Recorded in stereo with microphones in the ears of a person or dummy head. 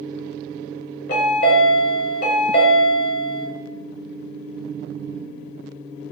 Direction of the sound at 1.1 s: 60° left (ahead or behind).